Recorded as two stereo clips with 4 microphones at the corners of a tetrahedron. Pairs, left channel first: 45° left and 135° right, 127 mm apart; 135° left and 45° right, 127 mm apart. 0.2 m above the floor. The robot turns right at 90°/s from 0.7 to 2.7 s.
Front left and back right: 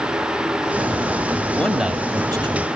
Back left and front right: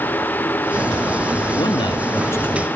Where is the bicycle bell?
I don't hear a bicycle bell.